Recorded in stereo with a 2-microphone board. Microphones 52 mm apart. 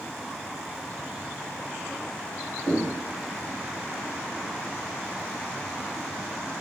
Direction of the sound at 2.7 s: 45° right (ahead or behind).